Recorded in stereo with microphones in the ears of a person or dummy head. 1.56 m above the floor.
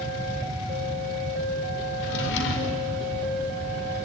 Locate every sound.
2.0 s a drawer: 65° left (ahead or behind), 2.5 m